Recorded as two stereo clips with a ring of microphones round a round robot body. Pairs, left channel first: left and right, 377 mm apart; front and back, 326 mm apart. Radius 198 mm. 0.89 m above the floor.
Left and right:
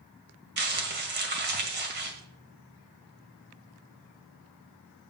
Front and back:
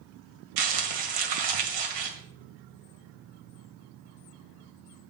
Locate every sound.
0.6 s crumpling: 155° right, 1.9 m